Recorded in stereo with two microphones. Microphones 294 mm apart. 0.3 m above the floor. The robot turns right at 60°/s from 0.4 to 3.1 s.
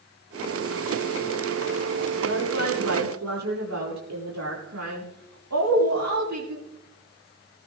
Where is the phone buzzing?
I don't hear a phone buzzing.